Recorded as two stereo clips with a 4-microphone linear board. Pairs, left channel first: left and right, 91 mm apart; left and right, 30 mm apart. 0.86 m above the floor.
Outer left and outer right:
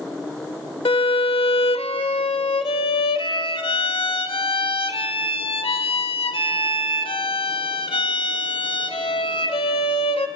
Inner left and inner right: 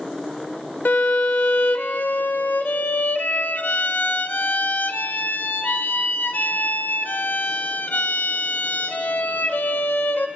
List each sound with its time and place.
0.8 s a violin: 80° left, 1.2 m